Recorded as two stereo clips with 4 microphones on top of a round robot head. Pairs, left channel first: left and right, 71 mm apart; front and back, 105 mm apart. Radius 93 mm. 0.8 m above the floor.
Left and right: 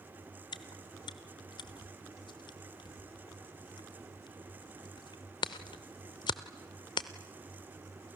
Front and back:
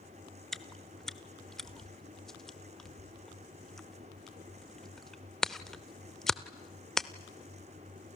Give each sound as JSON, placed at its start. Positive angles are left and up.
{"t": 0.5, "sound": "chewing", "azimuth_deg": 85, "distance_m": 0.7}